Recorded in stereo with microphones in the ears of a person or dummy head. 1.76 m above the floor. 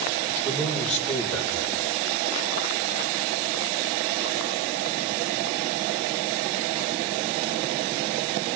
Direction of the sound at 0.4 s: 5° left (ahead or behind).